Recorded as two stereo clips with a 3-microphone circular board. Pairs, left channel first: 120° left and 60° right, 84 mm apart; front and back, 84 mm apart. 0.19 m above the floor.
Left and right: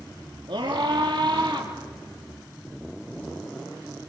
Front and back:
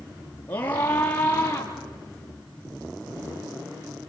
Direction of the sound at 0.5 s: 65° right.